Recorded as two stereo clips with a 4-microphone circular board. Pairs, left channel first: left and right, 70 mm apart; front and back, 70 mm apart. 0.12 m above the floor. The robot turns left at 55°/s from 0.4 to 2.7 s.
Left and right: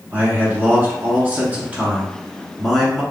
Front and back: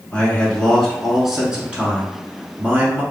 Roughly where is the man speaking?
Ahead right.